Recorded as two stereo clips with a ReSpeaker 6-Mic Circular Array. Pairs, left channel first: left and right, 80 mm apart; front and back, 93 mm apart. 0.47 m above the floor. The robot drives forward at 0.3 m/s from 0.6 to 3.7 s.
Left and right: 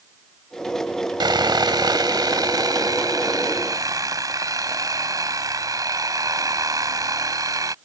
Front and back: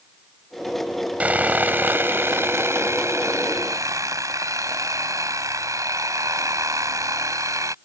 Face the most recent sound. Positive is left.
turn(degrees=-130)